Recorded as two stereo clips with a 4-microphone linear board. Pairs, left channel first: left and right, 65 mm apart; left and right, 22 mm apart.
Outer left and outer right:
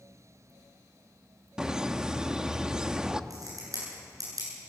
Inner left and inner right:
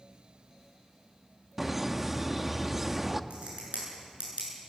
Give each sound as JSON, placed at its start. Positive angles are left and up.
{"t": 1.6, "sound": "laughter", "side_deg": -10, "distance_m": 0.8}
{"t": 3.3, "sound": "a crack", "side_deg": -65, "distance_m": 8.5}